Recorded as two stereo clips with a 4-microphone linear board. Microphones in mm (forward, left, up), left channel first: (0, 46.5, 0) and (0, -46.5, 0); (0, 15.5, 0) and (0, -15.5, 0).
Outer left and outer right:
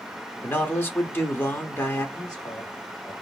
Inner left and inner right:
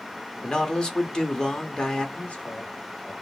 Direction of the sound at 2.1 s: 50° left (ahead or behind).